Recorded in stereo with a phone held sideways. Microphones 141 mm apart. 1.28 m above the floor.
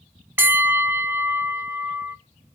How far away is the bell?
About 0.7 m.